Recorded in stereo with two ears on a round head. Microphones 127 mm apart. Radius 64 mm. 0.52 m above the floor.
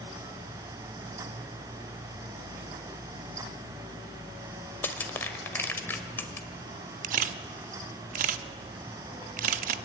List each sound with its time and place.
4.8 s crushing: 15° left (ahead or behind), 1.4 m
7.0 s a camera shutter: 60° right (ahead or behind), 0.7 m